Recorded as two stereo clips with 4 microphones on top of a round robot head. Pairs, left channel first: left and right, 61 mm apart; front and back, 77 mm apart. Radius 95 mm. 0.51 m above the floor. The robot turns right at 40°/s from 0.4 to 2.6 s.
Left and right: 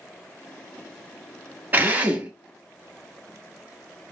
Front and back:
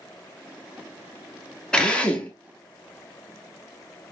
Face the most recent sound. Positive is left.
turn(degrees=-35)